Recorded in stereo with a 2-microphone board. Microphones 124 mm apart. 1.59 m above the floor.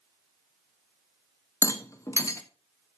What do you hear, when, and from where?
1.6 s a rattle: 25° left (ahead or behind), 1.0 m